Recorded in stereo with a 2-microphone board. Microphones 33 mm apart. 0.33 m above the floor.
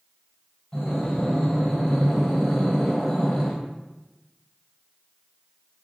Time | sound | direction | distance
0.7 | breathing | 25° left (ahead or behind) | 1.1 m